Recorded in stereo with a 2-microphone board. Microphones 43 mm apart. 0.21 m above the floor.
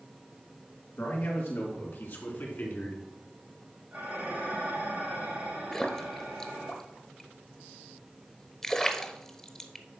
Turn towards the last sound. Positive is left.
turn(degrees=15)  # may be behind; listen again after turning